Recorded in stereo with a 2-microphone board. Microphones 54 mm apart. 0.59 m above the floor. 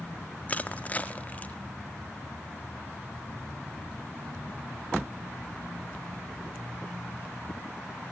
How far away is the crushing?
About 0.7 m.